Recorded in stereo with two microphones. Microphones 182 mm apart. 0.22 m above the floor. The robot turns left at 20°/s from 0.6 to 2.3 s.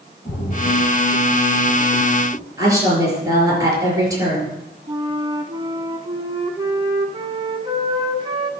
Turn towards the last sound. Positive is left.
turn(degrees=-25)  # may be behind; listen again after turning